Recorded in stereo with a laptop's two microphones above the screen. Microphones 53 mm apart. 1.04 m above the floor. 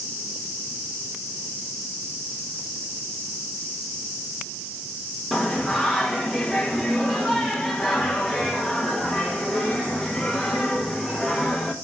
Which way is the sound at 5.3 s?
5° right (ahead or behind).